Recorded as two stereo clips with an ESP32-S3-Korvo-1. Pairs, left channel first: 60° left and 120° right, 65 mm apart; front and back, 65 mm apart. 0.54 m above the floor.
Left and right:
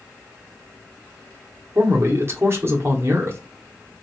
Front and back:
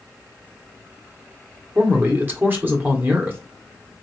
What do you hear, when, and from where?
1.8 s a man speaking: 140° right, 1.0 m